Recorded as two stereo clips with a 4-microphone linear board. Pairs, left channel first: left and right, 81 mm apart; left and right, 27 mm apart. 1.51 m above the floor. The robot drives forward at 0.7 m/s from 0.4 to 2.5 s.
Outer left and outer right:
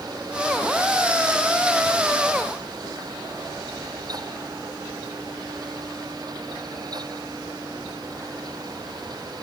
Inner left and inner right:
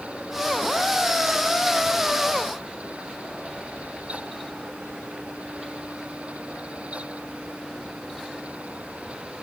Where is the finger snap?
No finger snap in this recording.